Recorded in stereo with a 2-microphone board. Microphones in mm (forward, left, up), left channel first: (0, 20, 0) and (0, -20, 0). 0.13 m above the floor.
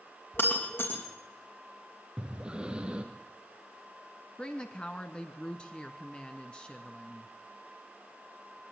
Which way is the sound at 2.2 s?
20° right (ahead or behind).